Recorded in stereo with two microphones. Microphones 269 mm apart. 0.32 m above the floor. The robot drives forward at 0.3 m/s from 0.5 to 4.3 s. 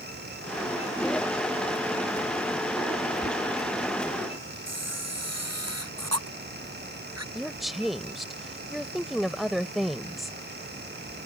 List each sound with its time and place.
3.2 s knocking: 35° right (ahead or behind)
4.7 s a camera shutter: 70° right (ahead or behind)
7.3 s a woman speaking: centre (ahead or behind)